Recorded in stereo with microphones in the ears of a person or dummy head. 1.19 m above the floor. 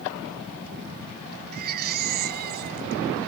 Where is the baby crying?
45° right (ahead or behind).